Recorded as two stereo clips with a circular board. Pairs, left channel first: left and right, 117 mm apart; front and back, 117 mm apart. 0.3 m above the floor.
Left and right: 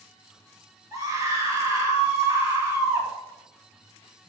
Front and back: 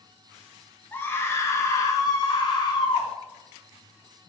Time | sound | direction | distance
0.9 | a scream | 60° right | 1.6 m